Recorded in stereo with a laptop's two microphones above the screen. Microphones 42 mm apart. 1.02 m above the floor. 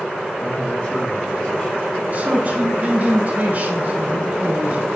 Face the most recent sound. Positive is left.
turn(degrees=-40)  # may be behind; listen again after turning